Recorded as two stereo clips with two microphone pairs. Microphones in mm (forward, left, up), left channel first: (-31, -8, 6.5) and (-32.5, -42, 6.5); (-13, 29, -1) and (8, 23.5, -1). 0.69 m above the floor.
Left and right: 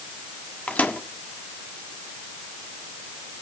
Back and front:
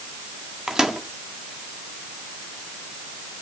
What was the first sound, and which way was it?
A microwave, 50° left.